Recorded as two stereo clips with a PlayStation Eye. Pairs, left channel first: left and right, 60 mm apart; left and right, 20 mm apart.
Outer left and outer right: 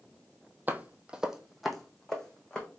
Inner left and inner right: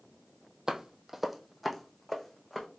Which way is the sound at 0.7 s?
30° right (ahead or behind).